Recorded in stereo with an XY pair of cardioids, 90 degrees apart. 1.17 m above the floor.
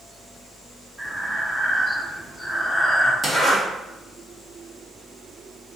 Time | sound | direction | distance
1.0 | breathing | 5° left | 1.0 m
3.2 | a zipper | 15° right | 1.5 m